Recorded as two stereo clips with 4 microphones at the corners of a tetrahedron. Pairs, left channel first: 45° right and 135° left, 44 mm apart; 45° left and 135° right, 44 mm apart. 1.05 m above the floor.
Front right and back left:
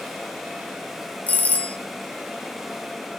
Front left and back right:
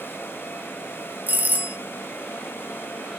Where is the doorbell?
90° right, 1.6 m.